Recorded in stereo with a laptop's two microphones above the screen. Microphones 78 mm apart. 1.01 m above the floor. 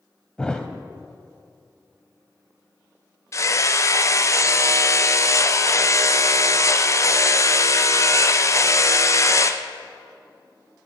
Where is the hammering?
40° left (ahead or behind), 0.6 m.